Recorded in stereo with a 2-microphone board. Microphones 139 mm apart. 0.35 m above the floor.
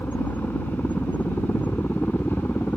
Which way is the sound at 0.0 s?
10° left (ahead or behind).